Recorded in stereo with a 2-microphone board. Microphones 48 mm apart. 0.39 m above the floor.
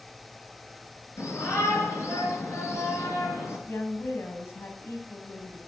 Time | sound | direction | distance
1.2 | a shout | 80° left | 7 m
3.7 | a woman speaking | 65° left (ahead or behind) | 3 m